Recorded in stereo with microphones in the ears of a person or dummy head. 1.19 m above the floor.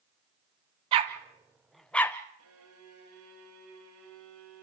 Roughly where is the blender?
No blender in this recording.